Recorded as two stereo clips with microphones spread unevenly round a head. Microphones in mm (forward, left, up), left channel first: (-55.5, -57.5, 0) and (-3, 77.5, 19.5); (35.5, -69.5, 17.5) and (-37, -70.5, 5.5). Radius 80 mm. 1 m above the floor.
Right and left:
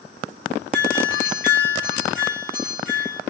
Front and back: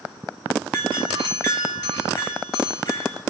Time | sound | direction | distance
0.7 | a doorbell | 30° right | 5.5 m